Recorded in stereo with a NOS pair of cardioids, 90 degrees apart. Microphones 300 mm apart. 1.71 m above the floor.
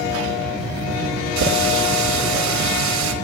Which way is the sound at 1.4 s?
70° right.